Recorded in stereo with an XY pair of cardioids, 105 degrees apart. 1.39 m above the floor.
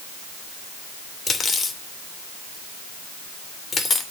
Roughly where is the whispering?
No whispering in this recording.